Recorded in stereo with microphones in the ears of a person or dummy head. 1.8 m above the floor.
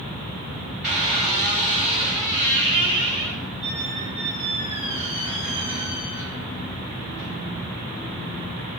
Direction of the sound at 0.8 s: 5° right (ahead or behind).